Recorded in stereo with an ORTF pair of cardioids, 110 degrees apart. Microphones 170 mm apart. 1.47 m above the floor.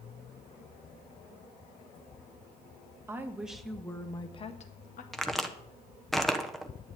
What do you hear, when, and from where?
3.1 s a woman speaking: 15° right, 1.6 m; by 5.0 s 55° left, 1.4 m
5.1 s a crack: straight ahead, 1.0 m